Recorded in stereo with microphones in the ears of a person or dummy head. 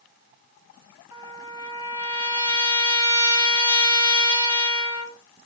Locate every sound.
1.1 s a trumpet: 15° right (ahead or behind), 3.5 m